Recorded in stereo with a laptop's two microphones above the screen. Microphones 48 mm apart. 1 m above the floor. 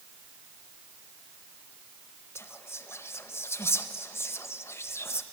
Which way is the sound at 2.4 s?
65° left (ahead or behind).